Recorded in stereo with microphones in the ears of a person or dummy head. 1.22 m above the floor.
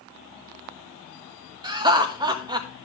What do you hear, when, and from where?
1.6 s laughter: 30° right (ahead or behind), 1.4 m